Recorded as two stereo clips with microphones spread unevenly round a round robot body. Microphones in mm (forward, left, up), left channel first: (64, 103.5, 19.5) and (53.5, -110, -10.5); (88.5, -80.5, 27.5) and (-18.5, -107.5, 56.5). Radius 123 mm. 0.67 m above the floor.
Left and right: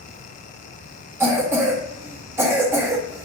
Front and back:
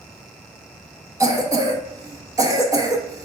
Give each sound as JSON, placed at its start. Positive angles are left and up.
{"t": 1.2, "sound": "a cough", "azimuth_deg": -120, "distance_m": 0.9}